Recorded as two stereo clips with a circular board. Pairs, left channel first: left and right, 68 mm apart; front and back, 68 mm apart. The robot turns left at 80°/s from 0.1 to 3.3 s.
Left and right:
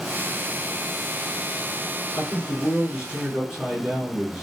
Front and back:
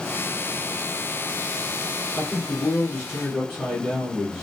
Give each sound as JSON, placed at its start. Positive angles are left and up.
{"t": 2.2, "sound": "a man speaking", "azimuth_deg": -10, "distance_m": 1.7}